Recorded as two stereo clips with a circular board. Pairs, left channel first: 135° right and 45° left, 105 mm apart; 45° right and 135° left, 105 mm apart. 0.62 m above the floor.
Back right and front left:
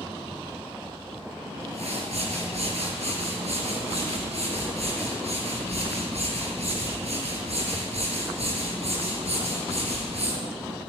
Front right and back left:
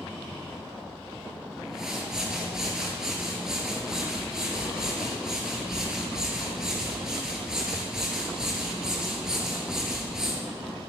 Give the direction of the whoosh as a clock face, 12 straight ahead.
10 o'clock.